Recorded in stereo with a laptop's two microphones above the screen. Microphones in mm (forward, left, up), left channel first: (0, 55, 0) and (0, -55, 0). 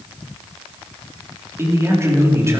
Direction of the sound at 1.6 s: 25° right (ahead or behind).